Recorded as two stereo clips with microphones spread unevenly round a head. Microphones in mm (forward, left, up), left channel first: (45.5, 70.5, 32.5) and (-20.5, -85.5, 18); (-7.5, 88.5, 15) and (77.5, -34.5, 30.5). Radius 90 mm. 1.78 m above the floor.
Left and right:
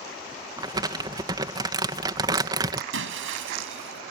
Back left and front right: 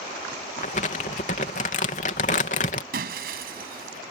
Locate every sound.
0.6 s crumpling: 175° left
2.9 s breaking glass: 100° right